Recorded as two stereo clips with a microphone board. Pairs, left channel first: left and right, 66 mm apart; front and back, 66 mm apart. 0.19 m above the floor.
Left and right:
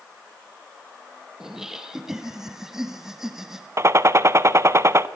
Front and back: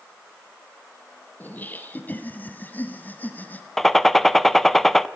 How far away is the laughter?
About 1.2 m.